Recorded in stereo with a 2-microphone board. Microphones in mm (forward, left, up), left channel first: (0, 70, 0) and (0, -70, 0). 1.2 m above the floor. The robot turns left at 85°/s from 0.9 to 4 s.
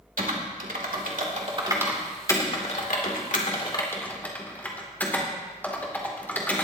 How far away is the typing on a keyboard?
About 2.5 m.